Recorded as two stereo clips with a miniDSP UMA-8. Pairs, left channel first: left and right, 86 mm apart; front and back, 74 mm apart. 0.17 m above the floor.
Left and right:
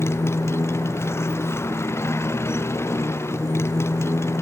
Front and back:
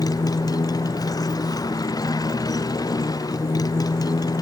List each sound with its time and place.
0.0 s a motorcycle: 30° left